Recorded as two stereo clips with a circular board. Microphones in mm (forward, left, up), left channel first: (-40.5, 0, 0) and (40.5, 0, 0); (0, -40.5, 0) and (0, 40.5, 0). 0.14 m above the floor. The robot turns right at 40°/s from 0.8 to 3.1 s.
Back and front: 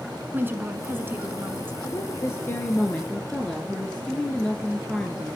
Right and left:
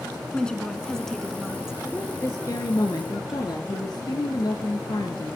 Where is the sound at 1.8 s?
155° right, 2.0 m; by 5.4 s 105° right, 2.0 m.